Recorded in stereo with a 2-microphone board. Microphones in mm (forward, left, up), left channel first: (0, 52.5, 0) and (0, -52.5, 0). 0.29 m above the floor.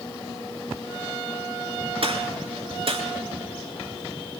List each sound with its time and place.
2.0 s a gunshot: 60° right (ahead or behind), 3.5 m